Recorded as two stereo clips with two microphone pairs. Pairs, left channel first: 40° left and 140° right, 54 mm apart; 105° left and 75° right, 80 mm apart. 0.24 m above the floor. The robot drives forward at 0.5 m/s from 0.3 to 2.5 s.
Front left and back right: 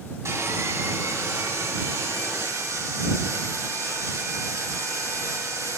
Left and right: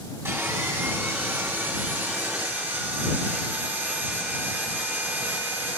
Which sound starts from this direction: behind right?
Sawing, at 0.2 s.